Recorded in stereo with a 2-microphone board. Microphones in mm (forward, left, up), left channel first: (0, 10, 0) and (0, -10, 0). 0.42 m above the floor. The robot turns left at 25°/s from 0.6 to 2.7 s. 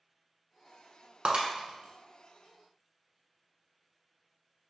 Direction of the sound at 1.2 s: 80° right.